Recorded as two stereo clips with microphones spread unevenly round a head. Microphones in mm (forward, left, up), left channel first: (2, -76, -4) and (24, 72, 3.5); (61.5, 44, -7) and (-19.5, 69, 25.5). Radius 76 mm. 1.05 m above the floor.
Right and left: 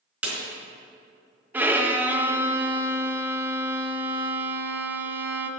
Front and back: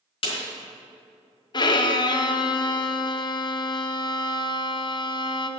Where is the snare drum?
5° left, 4 m.